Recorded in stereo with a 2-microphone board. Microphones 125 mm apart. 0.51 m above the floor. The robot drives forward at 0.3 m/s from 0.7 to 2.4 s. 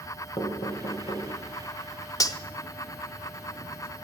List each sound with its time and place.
0.4 s knocking: 45° left (ahead or behind), 2 m
2.2 s cutlery clinking: 30° left (ahead or behind), 0.6 m